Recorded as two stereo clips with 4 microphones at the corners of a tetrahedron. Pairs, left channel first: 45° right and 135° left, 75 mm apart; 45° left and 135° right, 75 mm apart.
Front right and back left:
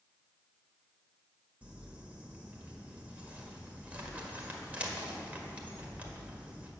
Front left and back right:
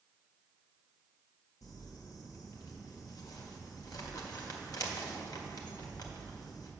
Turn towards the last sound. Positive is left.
turn(degrees=65)